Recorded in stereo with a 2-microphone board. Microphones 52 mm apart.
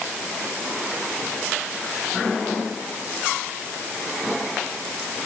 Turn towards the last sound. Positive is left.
No sound to turn to.